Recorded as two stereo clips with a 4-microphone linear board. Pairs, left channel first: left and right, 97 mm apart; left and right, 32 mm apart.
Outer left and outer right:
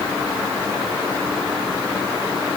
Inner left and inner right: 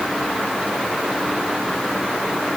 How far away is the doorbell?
I don't hear a doorbell.